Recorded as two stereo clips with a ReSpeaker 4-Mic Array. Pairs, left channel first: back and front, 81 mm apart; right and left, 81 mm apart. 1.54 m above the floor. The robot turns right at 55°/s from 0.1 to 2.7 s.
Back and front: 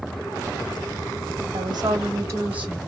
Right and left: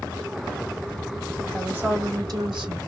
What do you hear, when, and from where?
1.5 s a woman speaking: 15° left, 1.7 m; by 2.8 s 75° left, 1.7 m